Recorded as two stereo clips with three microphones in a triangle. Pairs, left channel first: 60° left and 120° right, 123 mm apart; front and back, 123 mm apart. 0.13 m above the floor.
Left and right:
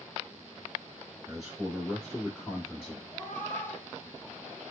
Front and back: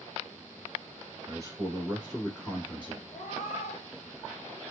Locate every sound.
1.3 s a man speaking: 160° left, 1.6 m; by 3.0 s 10° left, 1.5 m
3.1 s a cat meowing: 15° right, 0.7 m